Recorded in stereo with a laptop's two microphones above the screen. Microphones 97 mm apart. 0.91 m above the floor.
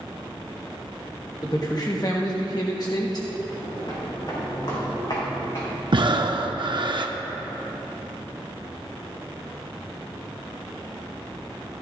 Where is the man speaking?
40° left (ahead or behind), 1.1 m.